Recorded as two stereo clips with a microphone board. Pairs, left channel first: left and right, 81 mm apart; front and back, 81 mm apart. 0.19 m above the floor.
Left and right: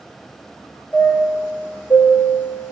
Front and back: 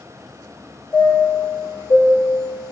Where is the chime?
30° left, 1.1 m.